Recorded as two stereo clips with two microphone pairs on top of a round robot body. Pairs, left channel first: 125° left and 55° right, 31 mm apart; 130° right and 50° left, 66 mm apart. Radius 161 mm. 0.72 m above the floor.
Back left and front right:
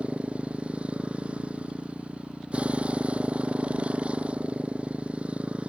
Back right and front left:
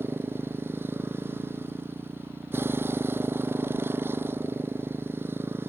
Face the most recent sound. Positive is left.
turn(degrees=-5)